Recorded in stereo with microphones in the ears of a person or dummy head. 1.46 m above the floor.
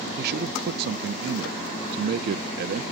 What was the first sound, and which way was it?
A man speaking, 55° right (ahead or behind).